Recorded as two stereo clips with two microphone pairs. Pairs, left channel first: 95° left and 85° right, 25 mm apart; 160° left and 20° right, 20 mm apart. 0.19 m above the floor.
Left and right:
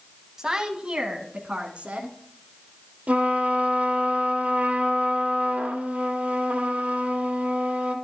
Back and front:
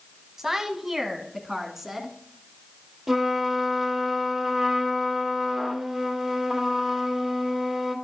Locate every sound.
0.4 s a woman speaking: 70° right, 1.0 m; by 2.2 s 95° right, 1.8 m
3.1 s a trumpet: 90° right, 2.5 m